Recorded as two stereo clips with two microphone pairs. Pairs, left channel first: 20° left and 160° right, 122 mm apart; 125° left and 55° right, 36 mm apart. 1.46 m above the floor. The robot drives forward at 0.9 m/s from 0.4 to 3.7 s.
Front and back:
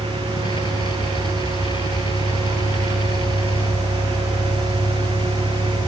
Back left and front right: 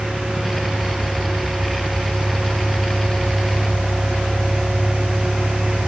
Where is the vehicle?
15° left; by 5.9 s 30° left.